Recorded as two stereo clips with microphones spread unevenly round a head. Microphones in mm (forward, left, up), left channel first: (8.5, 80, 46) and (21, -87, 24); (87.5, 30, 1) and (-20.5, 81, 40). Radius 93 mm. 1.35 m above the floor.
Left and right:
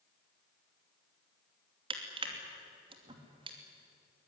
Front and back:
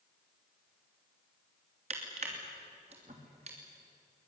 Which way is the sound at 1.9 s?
145° right.